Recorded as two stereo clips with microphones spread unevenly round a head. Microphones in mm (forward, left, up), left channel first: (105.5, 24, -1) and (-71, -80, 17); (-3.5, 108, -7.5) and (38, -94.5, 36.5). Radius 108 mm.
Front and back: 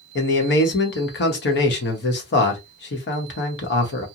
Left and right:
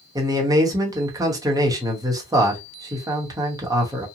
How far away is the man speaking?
About 1.0 m.